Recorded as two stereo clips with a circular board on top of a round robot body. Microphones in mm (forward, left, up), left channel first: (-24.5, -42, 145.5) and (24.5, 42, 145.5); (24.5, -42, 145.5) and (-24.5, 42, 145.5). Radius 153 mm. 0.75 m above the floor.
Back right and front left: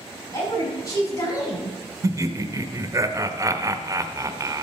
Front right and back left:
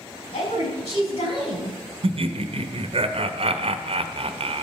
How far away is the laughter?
About 1.0 m.